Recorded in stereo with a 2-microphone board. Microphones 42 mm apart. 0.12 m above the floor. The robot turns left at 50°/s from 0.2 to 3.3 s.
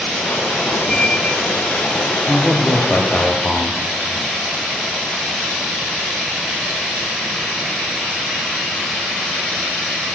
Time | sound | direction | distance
0.9 | a squeak | 165° left | 2 m
2.3 | a man speaking | 150° right | 3 m